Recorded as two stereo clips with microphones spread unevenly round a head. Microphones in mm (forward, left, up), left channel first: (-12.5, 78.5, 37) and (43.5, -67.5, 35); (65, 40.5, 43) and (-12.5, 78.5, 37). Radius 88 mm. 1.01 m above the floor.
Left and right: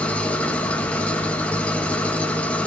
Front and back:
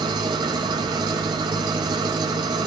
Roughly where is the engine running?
Behind.